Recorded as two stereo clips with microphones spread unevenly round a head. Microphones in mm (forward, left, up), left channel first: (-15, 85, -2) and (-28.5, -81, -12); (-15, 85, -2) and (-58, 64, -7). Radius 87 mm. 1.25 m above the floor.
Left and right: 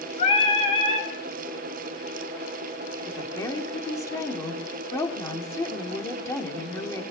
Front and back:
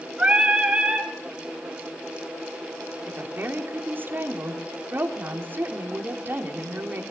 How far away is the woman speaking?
About 3 m.